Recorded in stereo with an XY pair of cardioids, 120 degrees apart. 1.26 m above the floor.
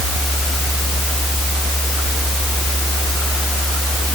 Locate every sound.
Only background noise.